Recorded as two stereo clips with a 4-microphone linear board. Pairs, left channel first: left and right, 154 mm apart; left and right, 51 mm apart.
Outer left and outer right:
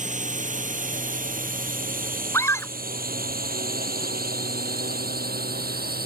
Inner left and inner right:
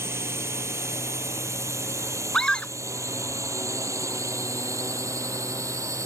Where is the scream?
15° left (ahead or behind).